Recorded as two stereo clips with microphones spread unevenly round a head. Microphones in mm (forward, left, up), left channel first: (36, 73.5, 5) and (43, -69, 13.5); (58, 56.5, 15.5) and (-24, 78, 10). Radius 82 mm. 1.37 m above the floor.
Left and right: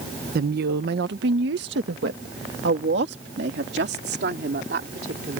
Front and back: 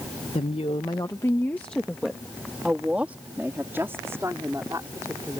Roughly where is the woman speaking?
Ahead right.